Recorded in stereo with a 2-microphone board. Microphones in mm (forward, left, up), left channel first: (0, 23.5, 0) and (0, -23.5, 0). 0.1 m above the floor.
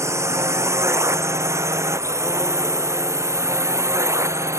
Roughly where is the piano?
I don't hear a piano.